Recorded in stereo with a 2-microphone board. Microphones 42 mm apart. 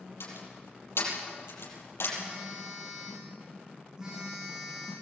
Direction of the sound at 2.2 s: 20° right (ahead or behind).